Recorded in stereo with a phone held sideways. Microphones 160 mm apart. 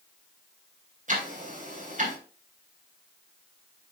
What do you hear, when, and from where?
1.1 s ticking: 55° right (ahead or behind), 3 m